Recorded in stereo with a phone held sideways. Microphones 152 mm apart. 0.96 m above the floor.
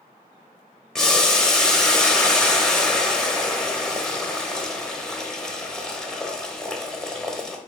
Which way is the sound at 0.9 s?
5° left (ahead or behind).